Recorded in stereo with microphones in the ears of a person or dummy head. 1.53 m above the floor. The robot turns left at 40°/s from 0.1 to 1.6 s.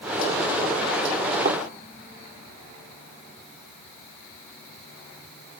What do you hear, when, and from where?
1.4 s a thud: 15° right (ahead or behind), 2 m